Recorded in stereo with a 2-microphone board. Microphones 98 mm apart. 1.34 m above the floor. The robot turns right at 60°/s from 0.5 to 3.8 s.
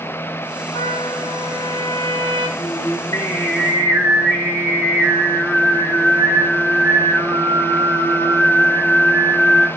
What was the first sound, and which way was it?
A trumpet, 55° left.